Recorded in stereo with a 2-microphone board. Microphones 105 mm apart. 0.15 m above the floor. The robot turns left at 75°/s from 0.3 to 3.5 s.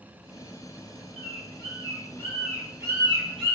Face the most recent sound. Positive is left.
turn(degrees=-70)  # may be behind; listen again after turning